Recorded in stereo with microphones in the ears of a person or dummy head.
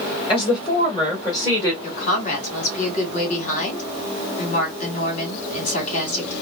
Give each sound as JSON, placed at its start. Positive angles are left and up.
{"t": 0.3, "sound": "a woman speaking", "side_deg": 30, "distance_m": 2.5}
{"t": 1.8, "sound": "a woman speaking", "side_deg": 45, "distance_m": 2.5}